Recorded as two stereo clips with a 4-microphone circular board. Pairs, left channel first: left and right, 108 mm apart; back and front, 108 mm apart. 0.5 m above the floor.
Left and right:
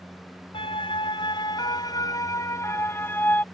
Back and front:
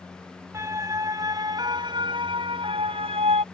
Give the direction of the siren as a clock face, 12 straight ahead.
10 o'clock.